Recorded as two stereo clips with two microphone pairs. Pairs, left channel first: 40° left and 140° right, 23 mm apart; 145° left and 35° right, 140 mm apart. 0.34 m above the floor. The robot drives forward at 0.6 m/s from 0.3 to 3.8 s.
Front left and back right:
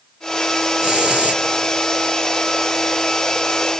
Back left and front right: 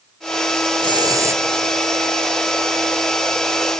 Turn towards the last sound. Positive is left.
turn(degrees=-150)